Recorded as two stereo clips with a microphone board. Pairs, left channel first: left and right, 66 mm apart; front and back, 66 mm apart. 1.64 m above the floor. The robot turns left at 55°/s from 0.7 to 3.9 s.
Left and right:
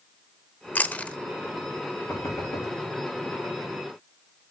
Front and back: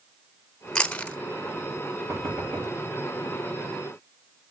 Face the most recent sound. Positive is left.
turn(degrees=45)